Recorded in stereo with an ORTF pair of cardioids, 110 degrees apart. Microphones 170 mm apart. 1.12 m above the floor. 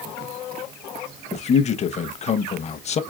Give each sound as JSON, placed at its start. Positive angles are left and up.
{"t": 1.3, "sound": "a man speaking", "azimuth_deg": 40, "distance_m": 0.8}